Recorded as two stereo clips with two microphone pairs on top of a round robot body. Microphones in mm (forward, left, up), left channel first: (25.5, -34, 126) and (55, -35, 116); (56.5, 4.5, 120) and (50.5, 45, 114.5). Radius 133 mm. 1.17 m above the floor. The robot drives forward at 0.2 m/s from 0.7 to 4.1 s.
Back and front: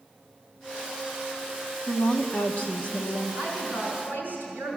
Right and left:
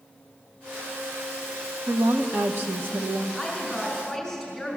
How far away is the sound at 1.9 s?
About 0.8 m.